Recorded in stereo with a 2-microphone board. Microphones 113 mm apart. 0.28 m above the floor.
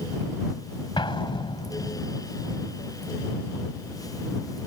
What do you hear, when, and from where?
1.0 s an explosion: 45° left (ahead or behind)